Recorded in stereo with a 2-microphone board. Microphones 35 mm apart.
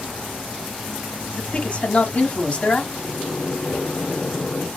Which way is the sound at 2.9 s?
65° left (ahead or behind).